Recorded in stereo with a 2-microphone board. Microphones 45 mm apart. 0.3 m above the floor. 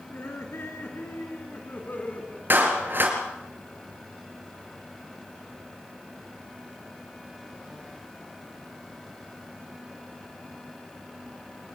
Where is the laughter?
70° left (ahead or behind), 4.5 m; by 2.4 s 35° left (ahead or behind), 3 m.